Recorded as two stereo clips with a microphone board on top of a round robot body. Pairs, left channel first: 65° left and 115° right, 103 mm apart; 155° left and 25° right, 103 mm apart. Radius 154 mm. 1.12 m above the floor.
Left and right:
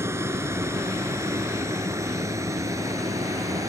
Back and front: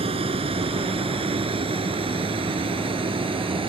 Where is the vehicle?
45° right; by 3.7 s 55° right.